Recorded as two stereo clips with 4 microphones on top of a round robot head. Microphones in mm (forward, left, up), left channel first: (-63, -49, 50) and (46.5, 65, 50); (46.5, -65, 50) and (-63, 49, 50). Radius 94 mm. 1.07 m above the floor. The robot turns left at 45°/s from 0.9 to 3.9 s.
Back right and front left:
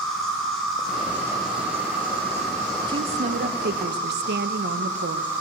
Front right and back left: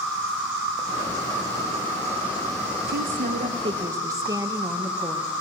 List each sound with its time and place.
0.0 s an insect: 135° left, 3 m; by 5.4 s straight ahead, 3 m
2.9 s a woman speaking: 110° left, 0.6 m; by 5.3 s 65° left, 0.6 m